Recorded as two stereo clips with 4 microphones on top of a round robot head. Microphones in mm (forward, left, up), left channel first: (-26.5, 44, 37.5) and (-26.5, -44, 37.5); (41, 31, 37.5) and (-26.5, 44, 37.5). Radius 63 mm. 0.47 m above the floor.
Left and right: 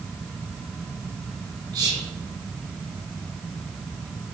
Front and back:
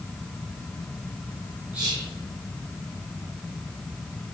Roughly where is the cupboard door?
I don't hear a cupboard door.